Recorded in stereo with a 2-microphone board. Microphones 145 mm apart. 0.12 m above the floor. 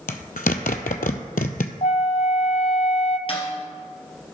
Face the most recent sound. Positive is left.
turn(degrees=40)  # may be behind; listen again after turning